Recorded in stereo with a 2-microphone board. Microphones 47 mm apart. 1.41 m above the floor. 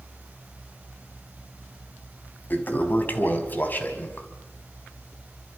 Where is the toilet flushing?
40° left (ahead or behind), 3 m.